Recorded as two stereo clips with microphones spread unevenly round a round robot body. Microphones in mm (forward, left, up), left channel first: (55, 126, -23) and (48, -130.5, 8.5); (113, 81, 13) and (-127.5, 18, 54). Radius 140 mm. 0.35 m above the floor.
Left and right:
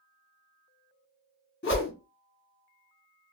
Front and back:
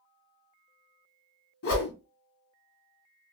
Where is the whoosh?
45° left, 1.4 m.